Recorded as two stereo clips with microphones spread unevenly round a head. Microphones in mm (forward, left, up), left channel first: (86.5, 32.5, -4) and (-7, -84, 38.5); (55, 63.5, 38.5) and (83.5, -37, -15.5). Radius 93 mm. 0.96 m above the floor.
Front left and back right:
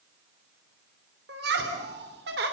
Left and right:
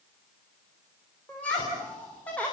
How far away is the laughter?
About 3 m.